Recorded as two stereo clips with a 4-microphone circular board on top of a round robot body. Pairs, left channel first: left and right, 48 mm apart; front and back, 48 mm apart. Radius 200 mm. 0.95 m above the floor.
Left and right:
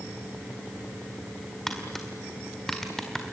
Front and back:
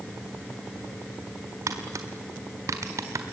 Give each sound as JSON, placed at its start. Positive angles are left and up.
{"t": 1.7, "sound": "tapping", "azimuth_deg": 170, "distance_m": 1.8}